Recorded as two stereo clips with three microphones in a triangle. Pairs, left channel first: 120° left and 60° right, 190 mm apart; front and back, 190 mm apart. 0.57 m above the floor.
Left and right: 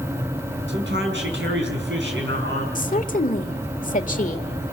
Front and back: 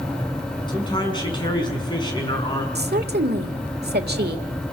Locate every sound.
0.7 s a man speaking: 65° right, 5.5 m
2.8 s a woman speaking: 160° left, 1.5 m